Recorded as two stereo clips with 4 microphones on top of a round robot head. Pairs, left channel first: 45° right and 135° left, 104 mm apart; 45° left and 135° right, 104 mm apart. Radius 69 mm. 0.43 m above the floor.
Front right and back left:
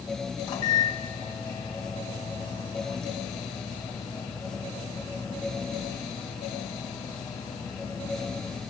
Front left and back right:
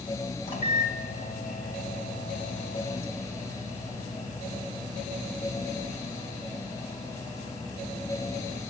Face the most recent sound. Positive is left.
turn(degrees=5)